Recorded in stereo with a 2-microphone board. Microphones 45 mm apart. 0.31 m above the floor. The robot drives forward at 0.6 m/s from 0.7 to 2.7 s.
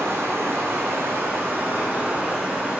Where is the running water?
75° right (ahead or behind), 0.9 m; by 2.8 s 35° right (ahead or behind), 1.5 m.